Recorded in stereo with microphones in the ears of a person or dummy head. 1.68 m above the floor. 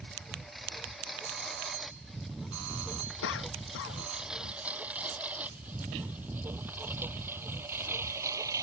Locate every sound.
0.0 s a lawn mower: centre (ahead or behind); by 8.6 s 20° right (ahead or behind)
1.2 s a doorbell: 80° right
3.2 s a cough: 55° left (ahead or behind)